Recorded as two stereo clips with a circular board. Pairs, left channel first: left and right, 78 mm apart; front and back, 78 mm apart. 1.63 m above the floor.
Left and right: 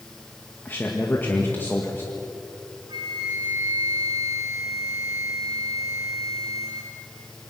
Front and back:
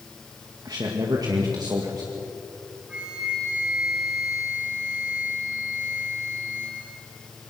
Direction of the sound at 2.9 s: 105° right.